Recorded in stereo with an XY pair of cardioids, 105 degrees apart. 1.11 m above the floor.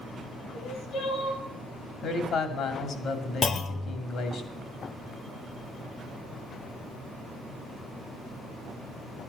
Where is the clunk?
45° left, 0.9 m.